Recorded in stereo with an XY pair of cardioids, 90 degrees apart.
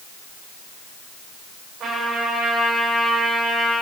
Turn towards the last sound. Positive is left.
turn(degrees=-60)